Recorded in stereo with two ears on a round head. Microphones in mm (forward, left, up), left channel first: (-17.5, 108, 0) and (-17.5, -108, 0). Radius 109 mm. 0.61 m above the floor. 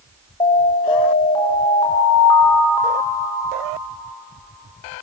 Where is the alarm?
20° left (ahead or behind), 3 m.